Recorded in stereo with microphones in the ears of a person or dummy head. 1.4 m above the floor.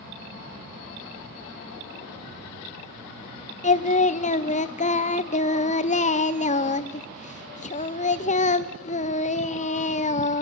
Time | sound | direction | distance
3.6 | singing | 30° left (ahead or behind) | 0.6 m